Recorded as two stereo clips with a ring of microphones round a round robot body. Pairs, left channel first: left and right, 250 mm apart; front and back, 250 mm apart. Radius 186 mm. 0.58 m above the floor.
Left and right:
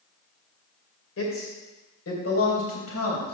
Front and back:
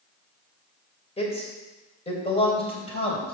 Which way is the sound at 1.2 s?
65° left.